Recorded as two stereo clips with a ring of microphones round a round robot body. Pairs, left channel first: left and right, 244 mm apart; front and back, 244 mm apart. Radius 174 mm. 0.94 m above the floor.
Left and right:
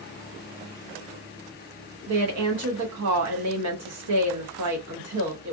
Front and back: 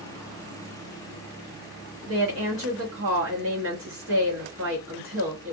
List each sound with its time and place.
2.1 s a woman speaking: 130° right, 0.7 m